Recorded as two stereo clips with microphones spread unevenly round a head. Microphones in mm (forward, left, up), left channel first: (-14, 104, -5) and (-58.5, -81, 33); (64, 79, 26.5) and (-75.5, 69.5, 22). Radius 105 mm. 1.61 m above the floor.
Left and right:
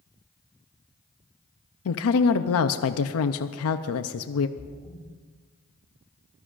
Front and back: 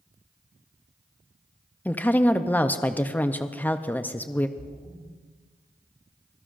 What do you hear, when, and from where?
1.9 s a woman speaking: 80° left, 0.6 m
4.6 s a splash: 135° left, 2.5 m